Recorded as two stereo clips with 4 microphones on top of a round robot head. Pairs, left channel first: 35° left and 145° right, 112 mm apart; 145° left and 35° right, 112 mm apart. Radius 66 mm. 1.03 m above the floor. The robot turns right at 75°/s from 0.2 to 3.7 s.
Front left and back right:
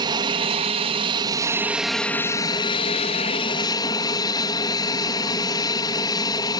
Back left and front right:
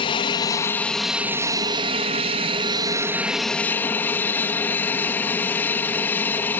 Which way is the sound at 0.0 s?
175° left.